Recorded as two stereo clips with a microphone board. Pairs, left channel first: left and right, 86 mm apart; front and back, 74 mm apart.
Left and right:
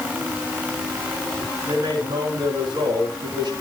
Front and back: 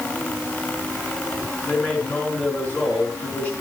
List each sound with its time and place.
1.6 s a man speaking: 65° right, 5 m